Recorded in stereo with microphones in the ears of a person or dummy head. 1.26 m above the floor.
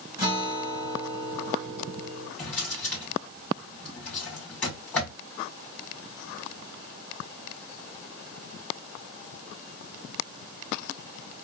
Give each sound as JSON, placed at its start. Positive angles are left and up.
{"t": 0.2, "sound": "a guitar", "side_deg": -15, "distance_m": 1.2}
{"t": 2.4, "sound": "a drawer", "side_deg": 10, "distance_m": 1.7}